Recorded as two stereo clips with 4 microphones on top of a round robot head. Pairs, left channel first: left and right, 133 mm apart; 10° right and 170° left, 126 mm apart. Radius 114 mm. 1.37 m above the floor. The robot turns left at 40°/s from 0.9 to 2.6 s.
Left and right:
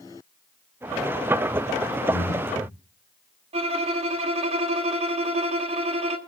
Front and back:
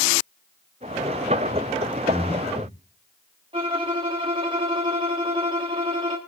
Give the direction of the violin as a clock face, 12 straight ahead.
4 o'clock.